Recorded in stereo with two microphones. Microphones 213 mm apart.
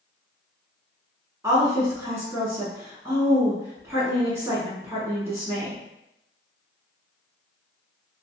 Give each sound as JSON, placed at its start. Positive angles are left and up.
{"t": 1.4, "sound": "a woman speaking", "side_deg": -15, "distance_m": 1.1}